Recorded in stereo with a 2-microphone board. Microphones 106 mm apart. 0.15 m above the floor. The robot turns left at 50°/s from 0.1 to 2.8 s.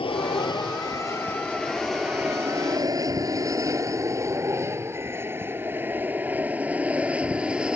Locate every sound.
0.0 s an aircraft: 60° left (ahead or behind); by 7.8 s 10° right (ahead or behind)